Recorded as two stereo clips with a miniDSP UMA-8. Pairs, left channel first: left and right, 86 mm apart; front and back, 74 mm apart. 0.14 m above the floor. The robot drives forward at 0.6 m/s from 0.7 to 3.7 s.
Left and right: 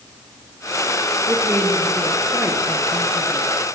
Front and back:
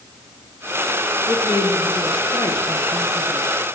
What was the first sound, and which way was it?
A woman speaking, 25° right.